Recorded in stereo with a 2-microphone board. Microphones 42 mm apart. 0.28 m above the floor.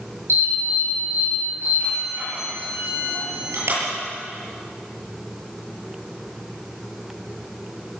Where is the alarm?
70° right (ahead or behind), 9.5 m.